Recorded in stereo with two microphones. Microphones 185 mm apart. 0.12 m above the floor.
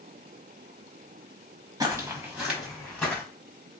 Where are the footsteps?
20° right (ahead or behind), 1.1 m; by 3.2 s 10° left (ahead or behind), 1.5 m.